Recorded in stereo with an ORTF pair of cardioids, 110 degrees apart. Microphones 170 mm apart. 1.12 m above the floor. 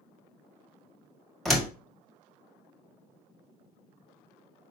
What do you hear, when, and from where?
1.4 s a door slam: straight ahead, 1.6 m